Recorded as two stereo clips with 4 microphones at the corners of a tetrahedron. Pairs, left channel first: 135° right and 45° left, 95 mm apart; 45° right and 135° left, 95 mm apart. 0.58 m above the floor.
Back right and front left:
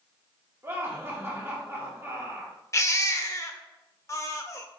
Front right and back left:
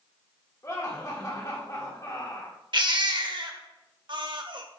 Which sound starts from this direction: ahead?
Laughter, at 0.6 s.